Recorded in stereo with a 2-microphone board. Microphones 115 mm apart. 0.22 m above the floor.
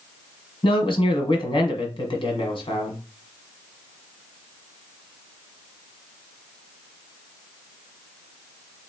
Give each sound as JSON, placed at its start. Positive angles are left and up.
{"t": 0.6, "sound": "a man speaking", "side_deg": 50, "distance_m": 1.4}